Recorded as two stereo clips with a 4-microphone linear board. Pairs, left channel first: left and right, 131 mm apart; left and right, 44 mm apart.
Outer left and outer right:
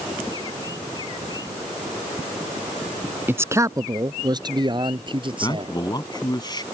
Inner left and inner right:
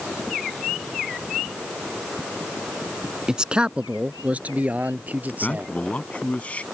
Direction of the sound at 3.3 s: 15° right (ahead or behind).